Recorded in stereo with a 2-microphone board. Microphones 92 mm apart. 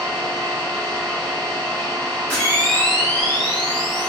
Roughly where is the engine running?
Left.